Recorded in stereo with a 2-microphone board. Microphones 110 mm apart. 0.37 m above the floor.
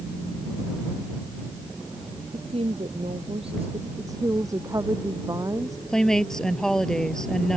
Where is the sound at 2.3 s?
60° right (ahead or behind).